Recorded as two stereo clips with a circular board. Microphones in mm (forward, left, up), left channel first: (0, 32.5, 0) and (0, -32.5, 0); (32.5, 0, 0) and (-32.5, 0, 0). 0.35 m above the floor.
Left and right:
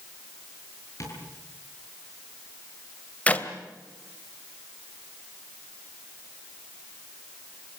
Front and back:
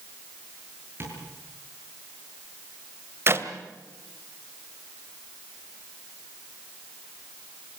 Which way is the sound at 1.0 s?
130° left.